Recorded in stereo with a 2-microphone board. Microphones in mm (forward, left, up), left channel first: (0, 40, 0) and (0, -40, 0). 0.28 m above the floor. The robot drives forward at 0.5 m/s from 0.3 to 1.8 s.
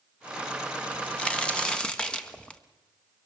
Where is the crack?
15° left (ahead or behind), 0.9 m; by 2.6 s 10° left (ahead or behind), 1.3 m.